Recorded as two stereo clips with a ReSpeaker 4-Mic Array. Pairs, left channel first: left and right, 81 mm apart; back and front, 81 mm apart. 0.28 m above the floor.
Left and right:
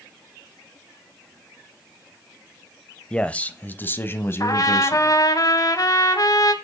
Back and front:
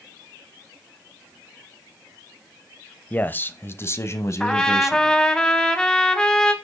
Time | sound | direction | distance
3.1 | a man speaking | 150° left | 0.9 m
4.4 | a trumpet | 100° left | 1.5 m